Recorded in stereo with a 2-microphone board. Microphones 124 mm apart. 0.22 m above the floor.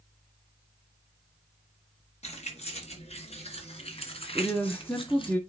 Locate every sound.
2.2 s keys jangling: 65° left (ahead or behind), 3 m; by 5.3 s 45° left (ahead or behind), 1.5 m
4.3 s a woman speaking: 5° left (ahead or behind), 1.7 m